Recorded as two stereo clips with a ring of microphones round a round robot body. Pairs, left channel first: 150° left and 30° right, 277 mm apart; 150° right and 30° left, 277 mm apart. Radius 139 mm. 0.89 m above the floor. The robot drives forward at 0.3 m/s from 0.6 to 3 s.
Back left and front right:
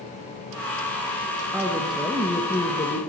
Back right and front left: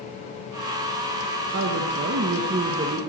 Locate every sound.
1.5 s a woman speaking: 50° left, 1.0 m; by 3.0 s 90° left, 0.9 m